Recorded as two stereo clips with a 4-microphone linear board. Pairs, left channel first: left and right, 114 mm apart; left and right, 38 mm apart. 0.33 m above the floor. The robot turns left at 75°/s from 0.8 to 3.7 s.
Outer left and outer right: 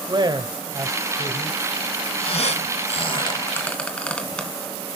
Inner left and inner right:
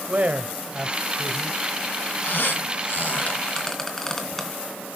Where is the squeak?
55° left (ahead or behind), 2.5 m; by 4.5 s 10° left (ahead or behind), 2.5 m.